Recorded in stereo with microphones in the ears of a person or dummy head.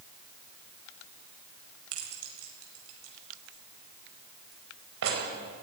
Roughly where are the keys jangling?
Right.